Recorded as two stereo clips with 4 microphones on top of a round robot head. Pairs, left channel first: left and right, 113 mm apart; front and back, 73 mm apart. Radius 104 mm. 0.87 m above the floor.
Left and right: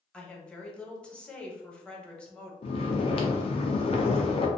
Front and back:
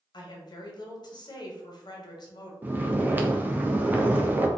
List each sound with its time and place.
0.1 s a woman speaking: 10° left, 0.8 m
2.6 s snoring: 115° left, 0.5 m